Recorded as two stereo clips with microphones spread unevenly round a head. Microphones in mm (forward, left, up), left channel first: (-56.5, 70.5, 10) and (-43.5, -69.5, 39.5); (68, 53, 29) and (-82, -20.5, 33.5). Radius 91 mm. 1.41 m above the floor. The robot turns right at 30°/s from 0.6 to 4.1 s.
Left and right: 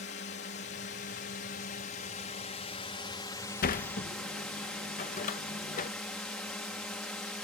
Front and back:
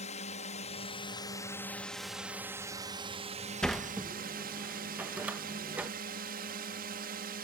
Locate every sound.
0.0 s a drone: 75° left; by 7.4 s straight behind
3.6 s a sliding door: 115° left; by 5.9 s 125° left